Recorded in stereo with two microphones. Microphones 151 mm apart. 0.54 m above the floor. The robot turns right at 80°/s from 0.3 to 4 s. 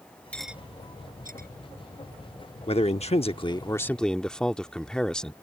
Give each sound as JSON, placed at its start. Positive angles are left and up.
{"t": 0.3, "sound": "cutlery clinking", "side_deg": 10}
{"t": 2.7, "sound": "a man speaking", "azimuth_deg": 65}